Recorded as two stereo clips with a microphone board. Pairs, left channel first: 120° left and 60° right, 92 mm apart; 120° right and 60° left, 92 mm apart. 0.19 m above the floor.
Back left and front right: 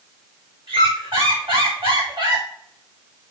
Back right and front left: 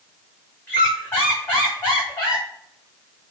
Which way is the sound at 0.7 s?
55° right.